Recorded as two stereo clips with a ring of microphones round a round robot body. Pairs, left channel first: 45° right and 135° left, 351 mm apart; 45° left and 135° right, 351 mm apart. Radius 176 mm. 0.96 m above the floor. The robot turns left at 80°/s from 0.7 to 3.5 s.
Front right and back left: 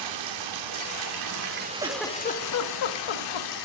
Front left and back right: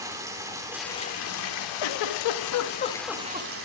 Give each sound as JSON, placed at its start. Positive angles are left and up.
{"t": 0.0, "sound": "running water", "azimuth_deg": 145, "distance_m": 2.5}
{"t": 1.8, "sound": "a giggle", "azimuth_deg": 60, "distance_m": 1.4}